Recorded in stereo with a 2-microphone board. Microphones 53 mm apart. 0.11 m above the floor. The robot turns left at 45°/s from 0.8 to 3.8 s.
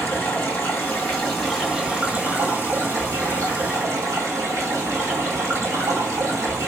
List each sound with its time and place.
0.0 s running water: 35° left, 2 m; by 6.7 s 100° right, 2 m